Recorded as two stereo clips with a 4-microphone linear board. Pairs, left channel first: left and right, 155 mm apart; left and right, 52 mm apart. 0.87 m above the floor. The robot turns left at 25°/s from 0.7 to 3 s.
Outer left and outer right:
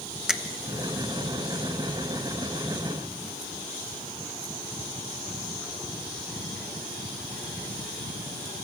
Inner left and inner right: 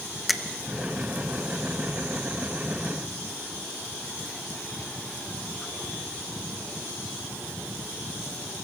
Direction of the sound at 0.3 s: 5° right (ahead or behind).